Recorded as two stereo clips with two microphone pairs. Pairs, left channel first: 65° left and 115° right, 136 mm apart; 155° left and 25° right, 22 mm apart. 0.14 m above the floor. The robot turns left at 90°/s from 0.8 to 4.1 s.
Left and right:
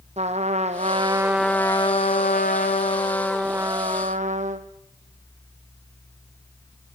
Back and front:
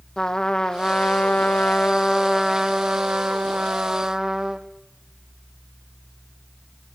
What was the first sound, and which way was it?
A trumpet, 150° right.